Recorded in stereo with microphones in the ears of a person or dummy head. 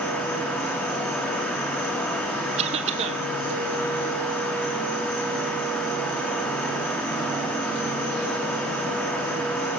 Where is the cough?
40° right (ahead or behind), 1.1 m.